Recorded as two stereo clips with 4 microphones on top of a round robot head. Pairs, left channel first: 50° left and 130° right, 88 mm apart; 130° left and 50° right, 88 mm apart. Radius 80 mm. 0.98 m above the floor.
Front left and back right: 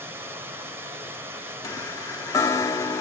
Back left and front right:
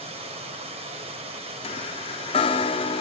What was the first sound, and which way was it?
Running water, 65° right.